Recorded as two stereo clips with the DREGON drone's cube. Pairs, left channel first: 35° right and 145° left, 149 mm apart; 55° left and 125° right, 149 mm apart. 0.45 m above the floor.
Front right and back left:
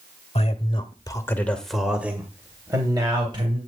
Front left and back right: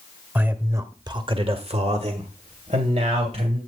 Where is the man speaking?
50° right, 1.4 m; by 3.6 s 160° right, 2.5 m.